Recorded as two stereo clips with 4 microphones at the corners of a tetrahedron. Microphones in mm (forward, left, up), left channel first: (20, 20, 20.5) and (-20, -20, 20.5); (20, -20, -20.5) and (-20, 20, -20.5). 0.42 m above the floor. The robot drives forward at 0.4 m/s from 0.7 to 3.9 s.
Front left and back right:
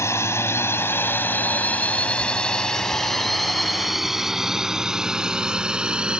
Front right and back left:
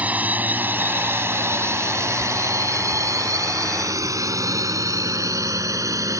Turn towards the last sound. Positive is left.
turn(degrees=150)